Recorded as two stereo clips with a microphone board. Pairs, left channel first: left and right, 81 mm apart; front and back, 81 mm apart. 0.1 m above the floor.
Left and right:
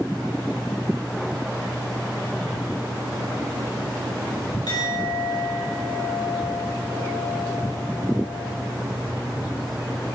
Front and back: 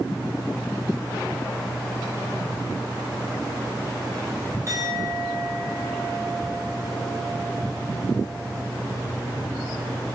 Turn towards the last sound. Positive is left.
turn(degrees=130)